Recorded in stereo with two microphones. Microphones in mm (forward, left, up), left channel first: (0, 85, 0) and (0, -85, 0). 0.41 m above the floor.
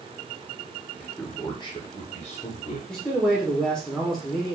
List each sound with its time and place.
1.0 s a man speaking: 10° left (ahead or behind), 1.1 m; by 2.8 s 50° left (ahead or behind), 1.6 m
2.9 s a man speaking: 5° left (ahead or behind), 1.2 m